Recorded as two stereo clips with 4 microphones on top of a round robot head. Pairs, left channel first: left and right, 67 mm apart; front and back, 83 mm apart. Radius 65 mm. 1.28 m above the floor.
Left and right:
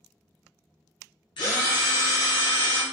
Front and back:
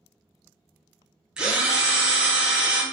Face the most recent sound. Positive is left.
turn(degrees=100)